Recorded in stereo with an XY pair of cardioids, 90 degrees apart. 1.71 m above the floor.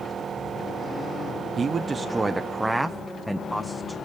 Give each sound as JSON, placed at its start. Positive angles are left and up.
{"t": 1.6, "sound": "a man speaking", "azimuth_deg": -45, "distance_m": 1.1}